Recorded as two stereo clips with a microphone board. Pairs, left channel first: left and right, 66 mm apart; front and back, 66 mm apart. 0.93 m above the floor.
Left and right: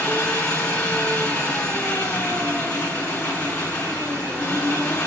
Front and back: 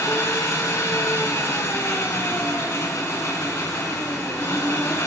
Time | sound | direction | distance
0.0 | an engine running | 20° left | 5 m